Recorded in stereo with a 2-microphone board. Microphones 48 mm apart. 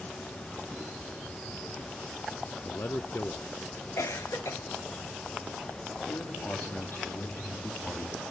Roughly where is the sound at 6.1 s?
Left.